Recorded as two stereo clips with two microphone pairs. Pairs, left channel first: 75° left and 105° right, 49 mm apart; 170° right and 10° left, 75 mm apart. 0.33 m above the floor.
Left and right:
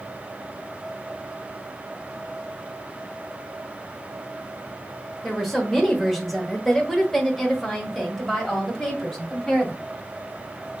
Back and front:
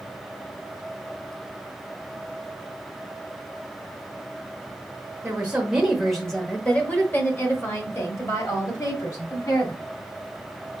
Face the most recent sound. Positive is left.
turn(degrees=165)